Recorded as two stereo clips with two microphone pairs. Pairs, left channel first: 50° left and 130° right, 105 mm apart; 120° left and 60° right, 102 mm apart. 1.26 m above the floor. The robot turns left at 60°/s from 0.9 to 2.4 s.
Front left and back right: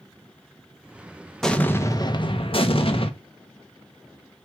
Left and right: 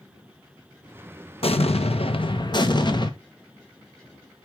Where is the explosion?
135° left, 1.4 m; by 3.1 s 75° left, 1.4 m.